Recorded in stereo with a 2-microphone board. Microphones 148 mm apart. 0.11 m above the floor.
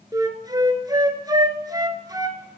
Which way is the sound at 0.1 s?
25° right (ahead or behind).